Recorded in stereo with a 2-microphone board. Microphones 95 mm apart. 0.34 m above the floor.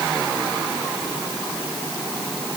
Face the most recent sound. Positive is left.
No sound to turn to.